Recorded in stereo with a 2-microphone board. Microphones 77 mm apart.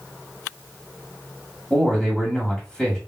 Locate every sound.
1.7 s a man speaking: 10° left (ahead or behind), 1.6 m